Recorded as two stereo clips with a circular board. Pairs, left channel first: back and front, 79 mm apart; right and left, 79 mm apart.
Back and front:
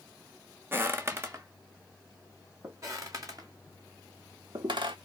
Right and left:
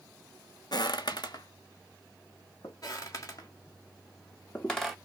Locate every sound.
0.7 s footsteps: 65° right, 0.6 m; by 2.7 s 50° right, 3 m
2.8 s footsteps: 50° right, 2.5 m; by 5.0 s straight ahead, 0.8 m